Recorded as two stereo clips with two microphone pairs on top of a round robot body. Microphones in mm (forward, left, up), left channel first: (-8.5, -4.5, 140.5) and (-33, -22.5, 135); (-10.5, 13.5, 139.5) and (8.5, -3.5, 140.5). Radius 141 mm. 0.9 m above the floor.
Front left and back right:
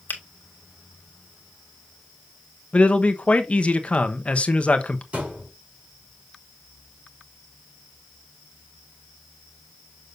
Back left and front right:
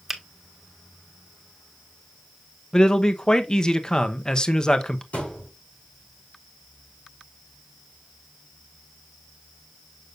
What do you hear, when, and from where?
0.1 s a finger snap: 40° left, 1.6 m
2.7 s a man speaking: 80° left, 1.1 m
5.1 s a thud: 170° left, 5.5 m